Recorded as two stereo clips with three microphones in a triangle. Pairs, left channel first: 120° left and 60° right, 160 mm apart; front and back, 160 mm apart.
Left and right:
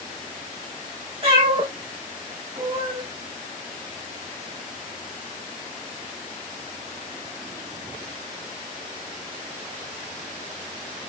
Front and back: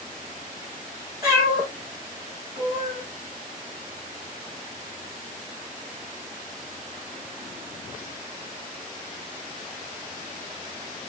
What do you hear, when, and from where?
1.2 s a cat meowing: 110° right, 5.5 m; by 3.0 s 130° right, 4 m